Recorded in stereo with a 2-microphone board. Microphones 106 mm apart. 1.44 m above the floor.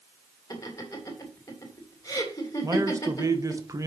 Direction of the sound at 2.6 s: 30° right (ahead or behind).